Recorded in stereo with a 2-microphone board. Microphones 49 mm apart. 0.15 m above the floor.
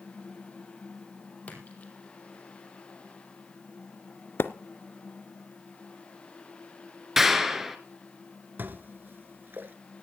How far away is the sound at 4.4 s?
About 0.9 m.